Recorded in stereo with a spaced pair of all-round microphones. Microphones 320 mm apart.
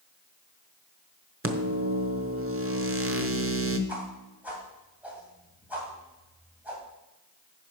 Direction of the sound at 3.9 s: 5° right (ahead or behind).